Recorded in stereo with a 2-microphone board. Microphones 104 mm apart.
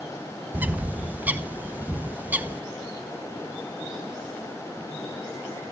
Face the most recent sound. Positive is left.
turn(degrees=-15)  # may be behind; listen again after turning